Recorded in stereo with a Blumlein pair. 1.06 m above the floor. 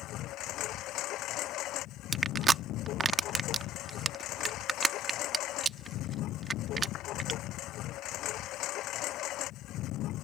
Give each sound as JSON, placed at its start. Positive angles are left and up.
{"t": 0.0, "sound": "a lawn mower", "azimuth_deg": 35}
{"t": 2.1, "sound": "crushing", "azimuth_deg": -15}